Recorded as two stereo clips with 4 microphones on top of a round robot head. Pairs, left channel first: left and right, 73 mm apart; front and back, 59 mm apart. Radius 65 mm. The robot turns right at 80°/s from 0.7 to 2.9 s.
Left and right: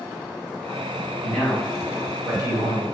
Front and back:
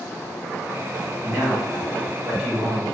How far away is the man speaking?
About 1.3 m.